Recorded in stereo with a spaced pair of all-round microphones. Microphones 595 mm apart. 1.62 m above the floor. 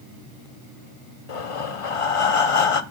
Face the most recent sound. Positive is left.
turn(degrees=60)  # may be behind; listen again after turning